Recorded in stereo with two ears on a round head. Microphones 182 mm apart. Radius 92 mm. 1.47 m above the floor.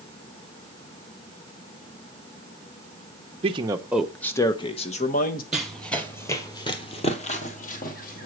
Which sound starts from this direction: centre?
Running footsteps, at 5.5 s.